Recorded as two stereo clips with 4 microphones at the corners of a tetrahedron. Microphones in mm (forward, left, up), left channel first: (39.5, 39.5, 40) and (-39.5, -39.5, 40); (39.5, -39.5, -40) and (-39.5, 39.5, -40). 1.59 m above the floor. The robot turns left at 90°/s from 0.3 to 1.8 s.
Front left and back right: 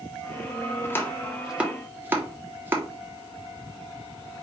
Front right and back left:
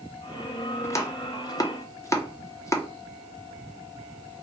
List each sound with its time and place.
0.8 s chopping: 5° left, 0.7 m; by 2.9 s 85° right, 0.7 m